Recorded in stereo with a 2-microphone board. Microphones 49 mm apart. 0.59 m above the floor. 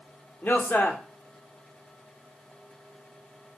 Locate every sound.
0.4 s a man speaking: 40° left (ahead or behind), 1.5 m